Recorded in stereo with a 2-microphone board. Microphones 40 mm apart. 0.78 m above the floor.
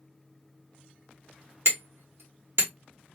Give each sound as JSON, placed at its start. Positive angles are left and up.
{"t": 1.6, "sound": "hammering", "side_deg": -70, "distance_m": 1.2}